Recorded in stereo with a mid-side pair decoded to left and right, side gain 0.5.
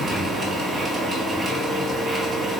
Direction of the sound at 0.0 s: 50° right.